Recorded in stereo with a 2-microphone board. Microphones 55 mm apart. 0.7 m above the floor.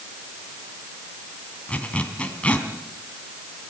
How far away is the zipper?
About 2.5 m.